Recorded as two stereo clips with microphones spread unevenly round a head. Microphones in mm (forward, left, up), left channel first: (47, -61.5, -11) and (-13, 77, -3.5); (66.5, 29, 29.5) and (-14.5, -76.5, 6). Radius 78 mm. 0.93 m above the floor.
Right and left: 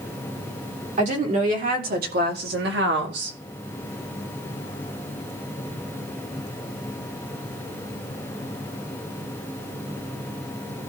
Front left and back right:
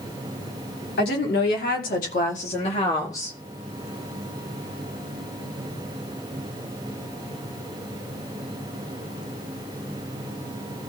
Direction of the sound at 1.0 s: 70° left.